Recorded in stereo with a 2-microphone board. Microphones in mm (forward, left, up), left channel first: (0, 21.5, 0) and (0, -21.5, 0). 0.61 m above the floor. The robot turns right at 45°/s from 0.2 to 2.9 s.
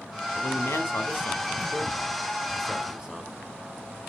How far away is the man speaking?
About 2 m.